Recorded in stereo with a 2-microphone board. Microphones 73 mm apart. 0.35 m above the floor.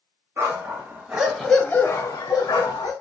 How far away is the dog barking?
About 1.1 m.